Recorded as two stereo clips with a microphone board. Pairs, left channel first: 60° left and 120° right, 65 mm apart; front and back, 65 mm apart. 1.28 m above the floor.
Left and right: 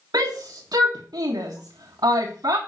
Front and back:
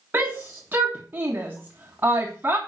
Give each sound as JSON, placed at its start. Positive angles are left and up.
{"t": 0.1, "sound": "a shout", "azimuth_deg": -120, "distance_m": 1.5}